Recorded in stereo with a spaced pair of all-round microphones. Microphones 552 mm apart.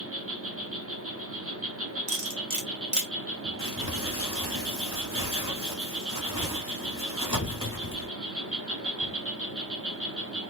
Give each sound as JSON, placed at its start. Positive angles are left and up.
{"t": 0.0, "sound": "an insect", "side_deg": -25, "distance_m": 1.0}
{"t": 2.1, "sound": "cutlery clinking", "side_deg": -35, "distance_m": 1.1}
{"t": 3.6, "sound": "crumpling", "side_deg": -10, "distance_m": 1.7}